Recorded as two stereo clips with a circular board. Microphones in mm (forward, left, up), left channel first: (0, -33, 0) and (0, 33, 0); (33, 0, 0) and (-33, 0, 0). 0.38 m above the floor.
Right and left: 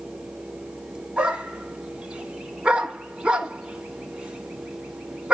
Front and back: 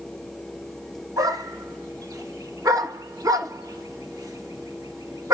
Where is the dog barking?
165° left, 1.2 m.